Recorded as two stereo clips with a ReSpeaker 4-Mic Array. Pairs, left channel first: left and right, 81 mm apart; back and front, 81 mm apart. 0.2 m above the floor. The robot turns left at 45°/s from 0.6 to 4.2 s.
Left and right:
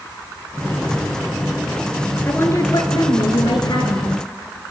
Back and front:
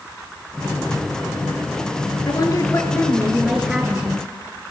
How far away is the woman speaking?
About 3.5 m.